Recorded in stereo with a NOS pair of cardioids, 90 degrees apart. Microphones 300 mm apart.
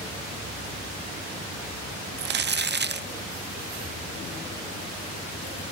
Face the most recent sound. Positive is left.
turn(degrees=-40)